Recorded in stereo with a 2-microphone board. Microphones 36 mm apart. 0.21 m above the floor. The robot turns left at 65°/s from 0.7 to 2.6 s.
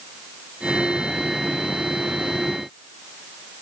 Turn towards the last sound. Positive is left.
No sound to turn to.